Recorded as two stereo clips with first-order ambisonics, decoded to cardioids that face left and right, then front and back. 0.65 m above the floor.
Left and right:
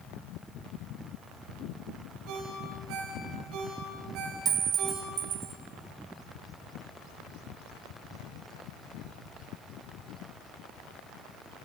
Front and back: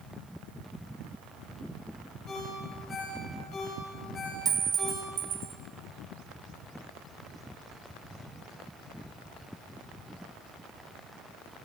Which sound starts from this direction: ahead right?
A ringtone, at 2.3 s.